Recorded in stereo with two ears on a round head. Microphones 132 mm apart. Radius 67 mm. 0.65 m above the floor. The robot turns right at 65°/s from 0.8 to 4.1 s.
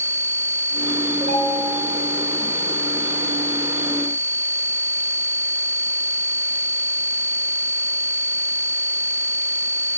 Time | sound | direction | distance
1.2 | a ringtone | 130° right | 2.5 m